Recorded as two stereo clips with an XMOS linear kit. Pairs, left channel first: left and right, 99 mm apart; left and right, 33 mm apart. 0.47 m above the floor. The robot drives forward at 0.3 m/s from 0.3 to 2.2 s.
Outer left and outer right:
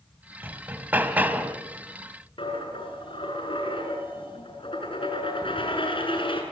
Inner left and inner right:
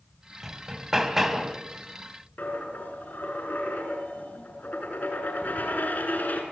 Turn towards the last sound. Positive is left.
turn(degrees=55)  # may be behind; listen again after turning